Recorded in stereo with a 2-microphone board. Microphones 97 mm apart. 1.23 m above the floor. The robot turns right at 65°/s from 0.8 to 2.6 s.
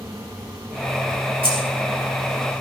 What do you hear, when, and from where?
1.4 s keys jangling: 75° right (ahead or behind), 5.5 m; by 1.6 s 65° right (ahead or behind), 5.5 m